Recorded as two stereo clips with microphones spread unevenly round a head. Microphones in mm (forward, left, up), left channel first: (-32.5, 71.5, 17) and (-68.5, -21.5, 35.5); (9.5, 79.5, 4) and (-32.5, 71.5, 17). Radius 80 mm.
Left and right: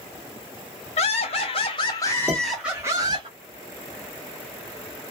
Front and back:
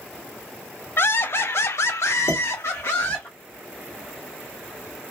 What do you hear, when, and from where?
1.0 s laughter: 40° left, 1.1 m; by 3.3 s 50° right, 0.9 m
2.3 s dishes clattering: 10° right, 1.7 m